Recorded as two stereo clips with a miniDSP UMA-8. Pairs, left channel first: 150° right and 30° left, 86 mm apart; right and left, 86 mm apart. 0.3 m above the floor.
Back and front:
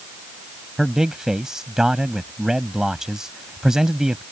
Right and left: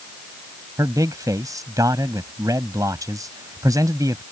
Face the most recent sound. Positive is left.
turn(degrees=110)